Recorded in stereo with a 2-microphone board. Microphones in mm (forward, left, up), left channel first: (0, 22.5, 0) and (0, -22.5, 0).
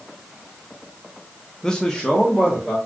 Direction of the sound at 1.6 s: 15° left (ahead or behind).